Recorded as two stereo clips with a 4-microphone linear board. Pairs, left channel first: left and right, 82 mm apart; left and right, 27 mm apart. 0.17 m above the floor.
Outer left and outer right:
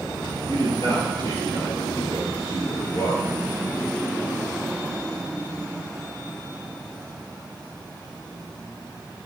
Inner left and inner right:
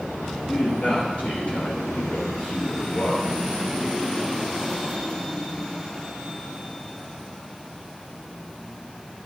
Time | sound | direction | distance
0.5 | a man speaking | 50° left (ahead or behind) | 4.5 m